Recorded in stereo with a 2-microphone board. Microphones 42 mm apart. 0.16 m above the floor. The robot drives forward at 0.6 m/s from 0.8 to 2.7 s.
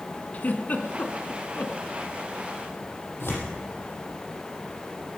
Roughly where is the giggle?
Left.